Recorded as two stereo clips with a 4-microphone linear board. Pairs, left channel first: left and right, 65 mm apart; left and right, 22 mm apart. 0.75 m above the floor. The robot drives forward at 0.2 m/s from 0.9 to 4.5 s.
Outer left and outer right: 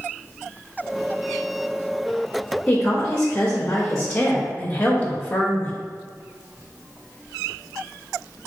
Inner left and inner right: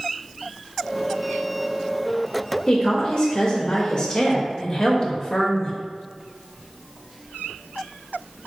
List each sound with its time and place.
2.7 s a woman speaking: 25° left (ahead or behind), 0.6 m